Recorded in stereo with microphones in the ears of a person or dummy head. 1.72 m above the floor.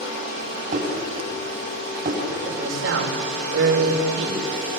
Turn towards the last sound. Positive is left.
turn(degrees=-85)